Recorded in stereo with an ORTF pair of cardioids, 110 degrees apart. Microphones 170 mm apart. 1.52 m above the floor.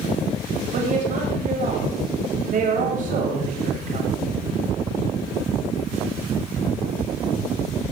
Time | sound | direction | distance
0.7 | a woman speaking | 50° right | 8.5 m